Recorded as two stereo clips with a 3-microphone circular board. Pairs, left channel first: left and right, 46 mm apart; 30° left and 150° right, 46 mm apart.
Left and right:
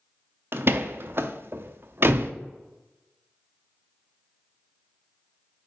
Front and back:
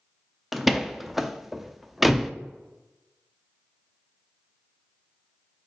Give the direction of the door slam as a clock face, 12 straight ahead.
2 o'clock.